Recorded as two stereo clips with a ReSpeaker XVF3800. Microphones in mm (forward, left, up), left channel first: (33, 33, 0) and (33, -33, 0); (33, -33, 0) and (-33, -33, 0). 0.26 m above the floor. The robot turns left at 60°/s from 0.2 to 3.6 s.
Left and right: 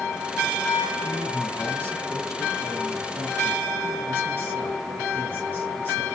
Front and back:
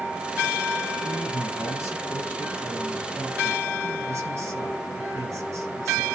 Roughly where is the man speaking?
Ahead.